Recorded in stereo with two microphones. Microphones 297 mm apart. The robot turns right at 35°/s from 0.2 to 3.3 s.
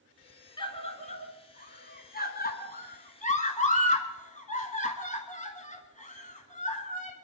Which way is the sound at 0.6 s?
15° left (ahead or behind).